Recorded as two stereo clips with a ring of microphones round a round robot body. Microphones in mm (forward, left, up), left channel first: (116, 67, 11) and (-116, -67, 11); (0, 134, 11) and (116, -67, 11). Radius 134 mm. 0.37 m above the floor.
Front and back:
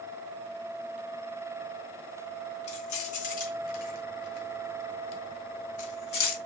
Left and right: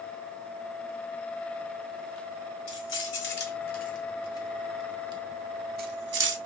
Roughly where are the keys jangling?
Left.